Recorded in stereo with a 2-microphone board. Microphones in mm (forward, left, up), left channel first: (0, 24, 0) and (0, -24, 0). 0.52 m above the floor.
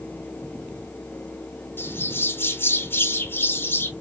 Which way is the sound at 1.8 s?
50° left (ahead or behind).